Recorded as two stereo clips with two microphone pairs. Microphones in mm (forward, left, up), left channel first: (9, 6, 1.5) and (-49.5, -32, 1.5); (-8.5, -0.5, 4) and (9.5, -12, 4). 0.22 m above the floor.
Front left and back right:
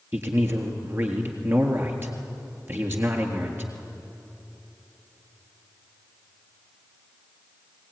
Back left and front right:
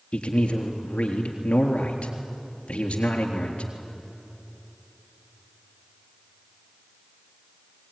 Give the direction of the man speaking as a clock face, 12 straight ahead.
7 o'clock.